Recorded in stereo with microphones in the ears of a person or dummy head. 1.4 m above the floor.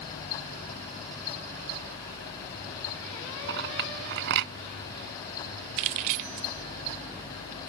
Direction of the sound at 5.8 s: 40° right (ahead or behind).